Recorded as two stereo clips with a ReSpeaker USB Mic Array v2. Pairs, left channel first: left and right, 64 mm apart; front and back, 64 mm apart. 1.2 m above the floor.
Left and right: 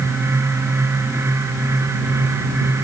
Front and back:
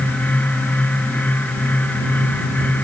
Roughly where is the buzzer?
No buzzer in this recording.